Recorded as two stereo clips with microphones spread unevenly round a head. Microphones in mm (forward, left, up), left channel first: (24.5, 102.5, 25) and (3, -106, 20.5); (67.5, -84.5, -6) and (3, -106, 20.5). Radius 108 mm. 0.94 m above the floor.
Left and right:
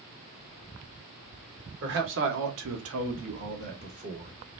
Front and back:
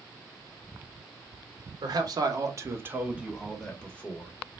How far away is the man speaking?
About 1.0 m.